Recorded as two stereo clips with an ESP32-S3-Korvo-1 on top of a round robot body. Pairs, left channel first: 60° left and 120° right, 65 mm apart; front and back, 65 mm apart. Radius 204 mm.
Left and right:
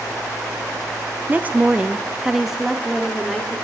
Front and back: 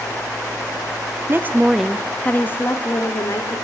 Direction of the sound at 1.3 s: 170° right.